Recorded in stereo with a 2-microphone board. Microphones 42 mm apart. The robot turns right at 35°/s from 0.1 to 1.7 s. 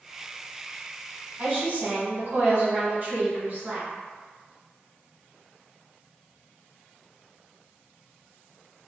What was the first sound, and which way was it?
A woman speaking, 40° right (ahead or behind).